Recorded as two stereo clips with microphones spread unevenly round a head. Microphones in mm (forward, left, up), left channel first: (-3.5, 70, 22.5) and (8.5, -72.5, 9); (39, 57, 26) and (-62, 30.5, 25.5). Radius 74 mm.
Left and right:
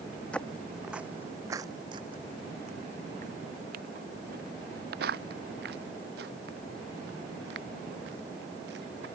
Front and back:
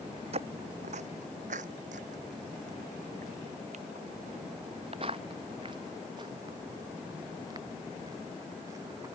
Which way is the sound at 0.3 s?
175° left.